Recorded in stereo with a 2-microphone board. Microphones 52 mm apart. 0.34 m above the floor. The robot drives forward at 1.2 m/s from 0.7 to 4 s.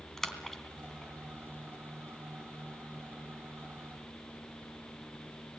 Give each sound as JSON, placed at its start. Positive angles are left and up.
{"t": 0.2, "sound": "a splash", "side_deg": 5, "distance_m": 3.0}